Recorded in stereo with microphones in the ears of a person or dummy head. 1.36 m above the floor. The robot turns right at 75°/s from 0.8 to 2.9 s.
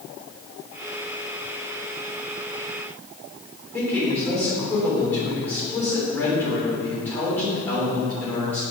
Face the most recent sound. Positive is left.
turn(degrees=10)  # may be behind; listen again after turning